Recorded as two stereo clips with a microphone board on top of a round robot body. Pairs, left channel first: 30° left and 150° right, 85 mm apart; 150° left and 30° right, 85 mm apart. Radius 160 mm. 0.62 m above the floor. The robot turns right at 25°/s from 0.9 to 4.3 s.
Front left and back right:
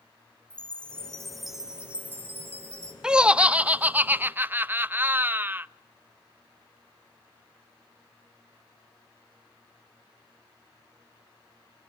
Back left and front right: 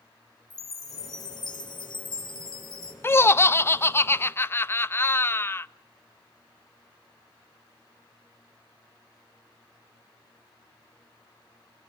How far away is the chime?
About 2.5 m.